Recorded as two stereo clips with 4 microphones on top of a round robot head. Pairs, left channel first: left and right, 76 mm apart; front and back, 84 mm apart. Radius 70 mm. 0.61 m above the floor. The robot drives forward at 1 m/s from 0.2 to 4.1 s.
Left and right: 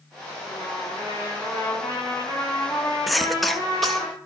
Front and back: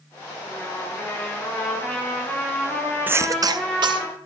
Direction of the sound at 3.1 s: Straight behind.